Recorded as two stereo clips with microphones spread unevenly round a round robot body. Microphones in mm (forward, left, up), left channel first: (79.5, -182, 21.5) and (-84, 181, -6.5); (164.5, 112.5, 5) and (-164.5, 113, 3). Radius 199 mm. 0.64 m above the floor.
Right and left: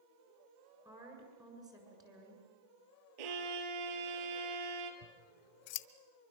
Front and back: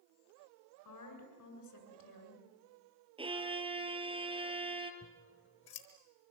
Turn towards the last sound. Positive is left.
turn(degrees=-65)